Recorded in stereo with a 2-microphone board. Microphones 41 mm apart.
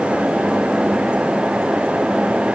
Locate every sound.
Only background noise.